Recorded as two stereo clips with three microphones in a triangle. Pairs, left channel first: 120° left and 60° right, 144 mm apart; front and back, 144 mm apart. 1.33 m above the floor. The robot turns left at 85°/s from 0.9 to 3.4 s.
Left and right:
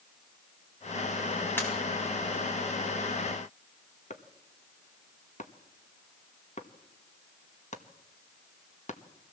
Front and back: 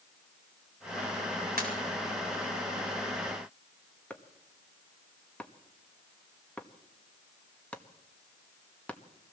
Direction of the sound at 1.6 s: 165° right.